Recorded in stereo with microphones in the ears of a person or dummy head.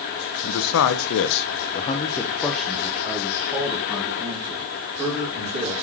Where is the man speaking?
75° left (ahead or behind), 0.8 m; by 5.8 s 30° right (ahead or behind), 2.5 m.